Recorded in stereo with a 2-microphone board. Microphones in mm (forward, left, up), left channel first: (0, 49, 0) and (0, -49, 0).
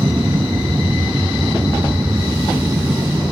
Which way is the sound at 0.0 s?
25° right (ahead or behind).